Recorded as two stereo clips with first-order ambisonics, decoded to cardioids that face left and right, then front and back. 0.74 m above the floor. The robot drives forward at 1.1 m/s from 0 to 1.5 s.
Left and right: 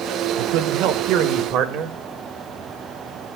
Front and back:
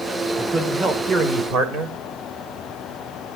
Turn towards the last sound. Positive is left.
turn(degrees=-130)